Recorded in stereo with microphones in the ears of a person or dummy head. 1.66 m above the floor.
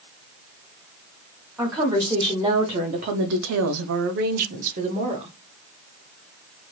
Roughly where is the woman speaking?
Centre.